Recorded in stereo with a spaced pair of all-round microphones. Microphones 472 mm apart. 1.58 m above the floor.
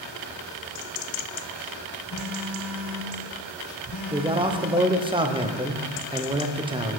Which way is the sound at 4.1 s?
10° right (ahead or behind).